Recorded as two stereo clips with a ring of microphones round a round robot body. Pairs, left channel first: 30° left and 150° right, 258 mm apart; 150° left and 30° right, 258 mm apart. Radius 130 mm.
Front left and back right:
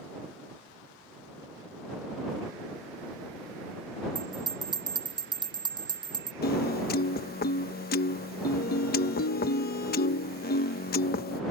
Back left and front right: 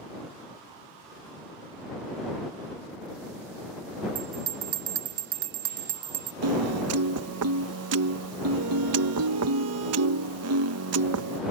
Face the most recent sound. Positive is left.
turn(degrees=-20)